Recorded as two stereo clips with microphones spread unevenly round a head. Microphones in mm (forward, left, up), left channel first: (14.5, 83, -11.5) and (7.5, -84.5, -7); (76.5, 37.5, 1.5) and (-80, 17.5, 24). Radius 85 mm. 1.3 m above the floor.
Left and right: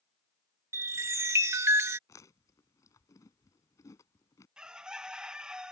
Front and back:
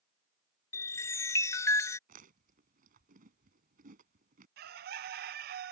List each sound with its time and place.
0.7 s a chime: 60° right
2.1 s chewing: 160° left
4.6 s a bird: 175° right